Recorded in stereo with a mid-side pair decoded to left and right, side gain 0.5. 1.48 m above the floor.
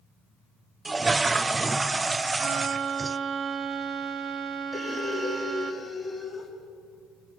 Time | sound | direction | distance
0.8 | a toilet flushing | 20° right | 0.7 m
2.4 | a violin | 50° right | 1.6 m
4.7 | breathing | straight ahead | 3.5 m